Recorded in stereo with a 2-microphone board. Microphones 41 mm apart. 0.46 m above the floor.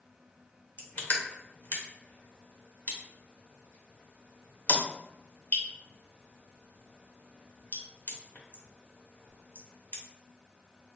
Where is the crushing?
50° left (ahead or behind), 0.9 m.